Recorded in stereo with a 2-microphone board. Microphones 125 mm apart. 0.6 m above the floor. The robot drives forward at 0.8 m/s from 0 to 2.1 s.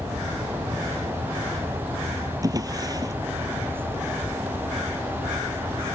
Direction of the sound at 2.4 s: 30° right (ahead or behind).